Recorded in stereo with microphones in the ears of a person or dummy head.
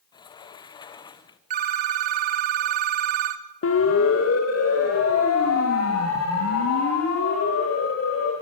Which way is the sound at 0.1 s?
20° left (ahead or behind).